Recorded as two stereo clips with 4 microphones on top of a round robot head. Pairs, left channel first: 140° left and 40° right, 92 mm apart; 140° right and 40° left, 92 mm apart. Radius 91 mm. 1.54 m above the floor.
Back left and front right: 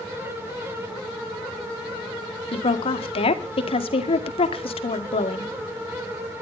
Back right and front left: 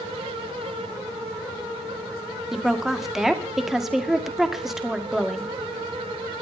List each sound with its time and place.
2.5 s a woman speaking: 130° left, 2.0 m